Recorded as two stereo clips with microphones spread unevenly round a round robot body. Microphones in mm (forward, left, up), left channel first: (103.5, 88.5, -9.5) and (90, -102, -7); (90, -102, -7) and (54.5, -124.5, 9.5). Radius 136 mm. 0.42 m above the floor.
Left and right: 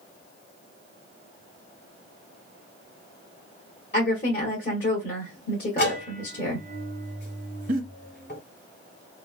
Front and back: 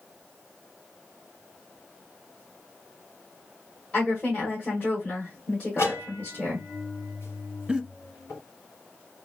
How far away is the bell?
About 1.4 m.